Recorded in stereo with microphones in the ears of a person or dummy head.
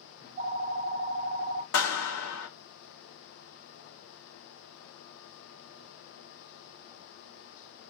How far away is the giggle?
No giggle in this recording.